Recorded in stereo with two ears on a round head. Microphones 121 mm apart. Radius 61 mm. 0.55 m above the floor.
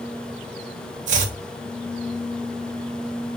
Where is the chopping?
60° right (ahead or behind), 1.5 m.